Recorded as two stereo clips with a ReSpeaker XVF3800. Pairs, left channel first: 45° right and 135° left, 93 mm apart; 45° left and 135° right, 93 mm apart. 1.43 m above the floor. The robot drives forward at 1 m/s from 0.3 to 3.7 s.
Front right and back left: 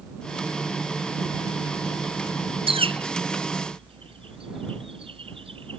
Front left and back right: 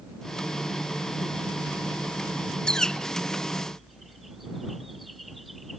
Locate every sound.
2.7 s a bird: 125° left; by 5.8 s 135° left